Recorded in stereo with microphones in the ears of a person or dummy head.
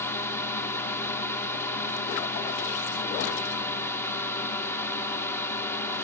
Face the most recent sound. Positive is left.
turn(degrees=10)  # may be behind; listen again after turning